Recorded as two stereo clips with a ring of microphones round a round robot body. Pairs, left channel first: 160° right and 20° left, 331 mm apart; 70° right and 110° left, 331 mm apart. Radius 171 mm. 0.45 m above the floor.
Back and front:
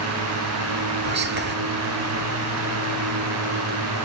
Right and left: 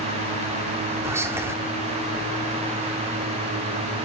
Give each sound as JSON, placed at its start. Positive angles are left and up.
{"t": 1.0, "sound": "whispering", "azimuth_deg": 35, "distance_m": 1.2}